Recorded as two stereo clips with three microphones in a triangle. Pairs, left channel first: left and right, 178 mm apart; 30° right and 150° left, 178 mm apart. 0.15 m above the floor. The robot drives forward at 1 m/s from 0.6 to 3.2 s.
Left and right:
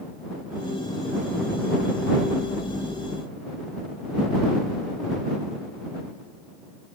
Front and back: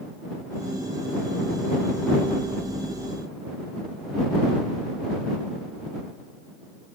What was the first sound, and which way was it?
Only background noise.